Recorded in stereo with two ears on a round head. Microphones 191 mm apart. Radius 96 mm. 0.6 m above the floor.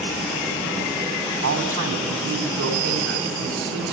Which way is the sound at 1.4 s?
70° right (ahead or behind).